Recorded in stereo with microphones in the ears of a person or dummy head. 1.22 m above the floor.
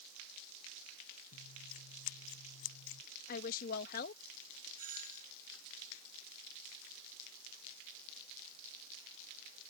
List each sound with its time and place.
1.3 s scissors: 80° left
3.3 s a woman speaking: 55° left (ahead or behind)
4.8 s a doorbell: 45° right (ahead or behind)